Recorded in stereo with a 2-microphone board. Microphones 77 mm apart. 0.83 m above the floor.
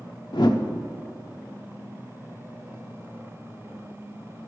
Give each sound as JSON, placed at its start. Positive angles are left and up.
{"t": 0.3, "sound": "a whoosh", "side_deg": 70, "distance_m": 0.9}